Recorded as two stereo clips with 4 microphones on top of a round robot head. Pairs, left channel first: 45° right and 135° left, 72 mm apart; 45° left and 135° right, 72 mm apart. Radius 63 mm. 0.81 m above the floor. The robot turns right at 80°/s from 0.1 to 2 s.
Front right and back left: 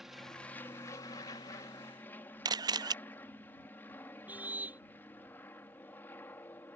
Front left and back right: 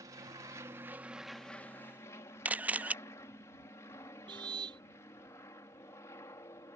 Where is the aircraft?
140° right; by 6.8 s 10° left.